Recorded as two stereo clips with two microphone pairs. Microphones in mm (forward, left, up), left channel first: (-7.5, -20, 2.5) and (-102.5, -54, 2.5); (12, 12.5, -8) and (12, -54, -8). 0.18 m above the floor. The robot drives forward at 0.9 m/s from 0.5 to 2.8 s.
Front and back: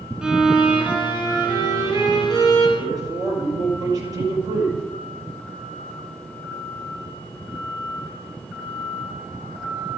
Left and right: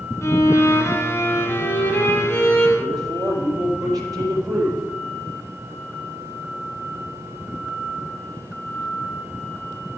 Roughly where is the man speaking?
Right.